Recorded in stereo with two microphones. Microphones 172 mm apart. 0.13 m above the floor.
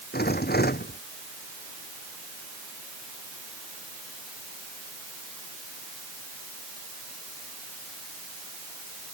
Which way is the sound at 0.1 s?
65° left (ahead or behind).